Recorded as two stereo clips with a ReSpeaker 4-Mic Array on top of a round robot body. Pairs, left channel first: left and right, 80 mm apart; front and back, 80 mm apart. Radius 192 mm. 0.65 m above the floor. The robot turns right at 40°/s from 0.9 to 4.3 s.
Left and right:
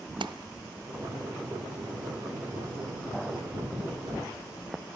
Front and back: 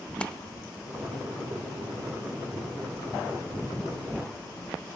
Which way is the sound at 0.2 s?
80° right.